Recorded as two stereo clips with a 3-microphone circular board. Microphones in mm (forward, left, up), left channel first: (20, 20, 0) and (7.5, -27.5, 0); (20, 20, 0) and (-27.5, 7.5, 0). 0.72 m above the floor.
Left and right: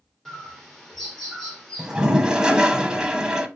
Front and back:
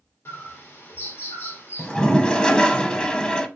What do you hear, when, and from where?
0.2 s a bird: 5° right, 1.4 m
1.8 s a toilet flushing: 40° right, 0.6 m